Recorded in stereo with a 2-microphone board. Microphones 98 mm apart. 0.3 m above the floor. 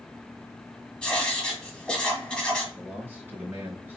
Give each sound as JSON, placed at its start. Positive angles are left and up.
{"t": 1.0, "sound": "writing", "side_deg": 10, "distance_m": 1.6}
{"t": 2.8, "sound": "a man speaking", "side_deg": -20, "distance_m": 2.5}